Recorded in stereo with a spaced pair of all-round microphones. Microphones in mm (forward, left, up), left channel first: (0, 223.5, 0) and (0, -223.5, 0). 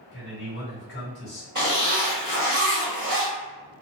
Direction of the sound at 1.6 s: 40° right (ahead or behind).